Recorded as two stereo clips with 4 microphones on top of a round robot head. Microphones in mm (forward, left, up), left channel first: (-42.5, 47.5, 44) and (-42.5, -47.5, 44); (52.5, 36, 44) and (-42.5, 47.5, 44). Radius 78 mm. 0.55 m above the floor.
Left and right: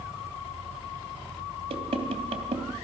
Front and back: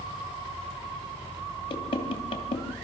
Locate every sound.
1.7 s knocking: 50° right, 2.5 m